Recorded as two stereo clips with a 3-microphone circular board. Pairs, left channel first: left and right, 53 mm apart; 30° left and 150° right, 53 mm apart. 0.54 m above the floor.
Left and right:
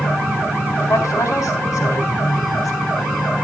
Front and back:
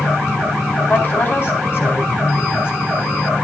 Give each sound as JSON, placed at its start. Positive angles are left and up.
{"t": 0.9, "sound": "a woman speaking", "azimuth_deg": 75, "distance_m": 4.0}